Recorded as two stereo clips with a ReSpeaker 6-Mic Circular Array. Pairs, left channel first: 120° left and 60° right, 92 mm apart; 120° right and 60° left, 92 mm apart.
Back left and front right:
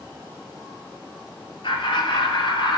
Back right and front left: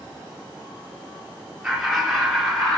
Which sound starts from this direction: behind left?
Laughter, at 1.6 s.